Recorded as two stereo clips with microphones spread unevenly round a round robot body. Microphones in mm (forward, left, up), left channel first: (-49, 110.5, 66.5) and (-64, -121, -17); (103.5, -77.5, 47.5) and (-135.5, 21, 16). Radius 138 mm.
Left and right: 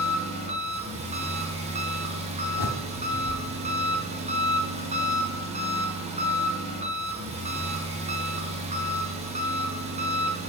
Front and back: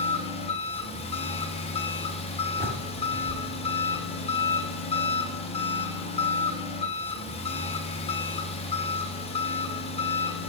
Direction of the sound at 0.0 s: 90° right.